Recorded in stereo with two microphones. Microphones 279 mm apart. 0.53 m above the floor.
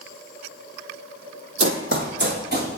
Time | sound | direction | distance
1.6 | running footsteps | 50° right (ahead or behind) | 0.7 m